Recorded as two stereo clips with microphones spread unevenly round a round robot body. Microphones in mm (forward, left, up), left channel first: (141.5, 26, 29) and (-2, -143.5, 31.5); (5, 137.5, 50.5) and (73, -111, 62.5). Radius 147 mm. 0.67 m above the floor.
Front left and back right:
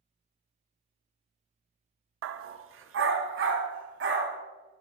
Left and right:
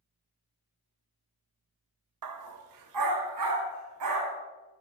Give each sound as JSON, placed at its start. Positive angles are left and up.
{"t": 2.2, "sound": "a dog barking", "azimuth_deg": -105, "distance_m": 0.5}